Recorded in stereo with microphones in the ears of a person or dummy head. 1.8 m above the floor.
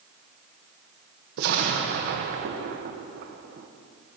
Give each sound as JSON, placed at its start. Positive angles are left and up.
{"t": 1.4, "sound": "an explosion", "side_deg": -50, "distance_m": 1.2}